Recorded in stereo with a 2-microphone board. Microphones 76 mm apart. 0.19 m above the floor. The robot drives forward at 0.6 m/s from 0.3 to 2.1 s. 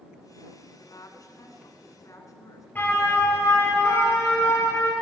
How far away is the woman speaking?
About 1.9 m.